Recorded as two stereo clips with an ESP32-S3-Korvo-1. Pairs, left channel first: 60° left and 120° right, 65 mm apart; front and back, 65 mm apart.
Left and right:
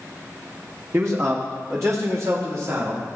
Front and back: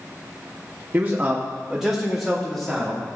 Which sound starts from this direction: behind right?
A man speaking, at 0.9 s.